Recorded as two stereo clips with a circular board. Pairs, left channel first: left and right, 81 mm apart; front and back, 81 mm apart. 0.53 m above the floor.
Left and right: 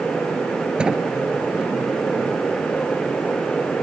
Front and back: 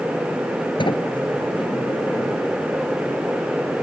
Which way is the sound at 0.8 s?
10° right.